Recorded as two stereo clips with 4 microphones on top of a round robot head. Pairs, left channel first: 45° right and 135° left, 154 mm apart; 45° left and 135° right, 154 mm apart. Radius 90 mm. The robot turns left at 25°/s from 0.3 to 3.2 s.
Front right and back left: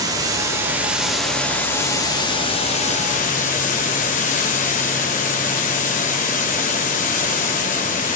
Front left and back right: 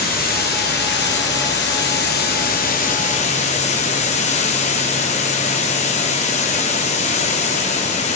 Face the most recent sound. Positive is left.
turn(degrees=-5)